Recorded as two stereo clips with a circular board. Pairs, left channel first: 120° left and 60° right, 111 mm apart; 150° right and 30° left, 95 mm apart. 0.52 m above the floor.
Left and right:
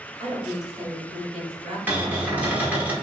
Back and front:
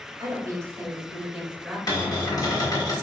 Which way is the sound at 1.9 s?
130° right.